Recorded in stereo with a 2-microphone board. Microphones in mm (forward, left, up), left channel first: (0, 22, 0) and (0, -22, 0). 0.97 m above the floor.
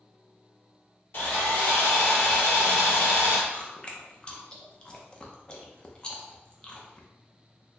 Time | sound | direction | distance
1.1 | sawing | 50° left (ahead or behind) | 1.8 m
3.5 | chewing | 20° left (ahead or behind) | 0.6 m